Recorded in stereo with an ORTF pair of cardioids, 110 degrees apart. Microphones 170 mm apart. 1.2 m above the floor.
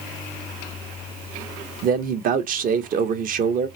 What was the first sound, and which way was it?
A man speaking, 55° right.